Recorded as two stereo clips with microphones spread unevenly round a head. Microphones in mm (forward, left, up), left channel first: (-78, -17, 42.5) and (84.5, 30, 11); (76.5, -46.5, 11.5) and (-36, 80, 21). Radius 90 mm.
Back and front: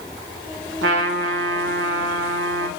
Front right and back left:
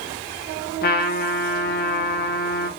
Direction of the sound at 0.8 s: 15° right.